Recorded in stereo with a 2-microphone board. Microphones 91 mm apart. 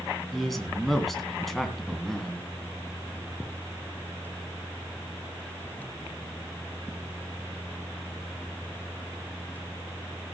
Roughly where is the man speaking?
Centre.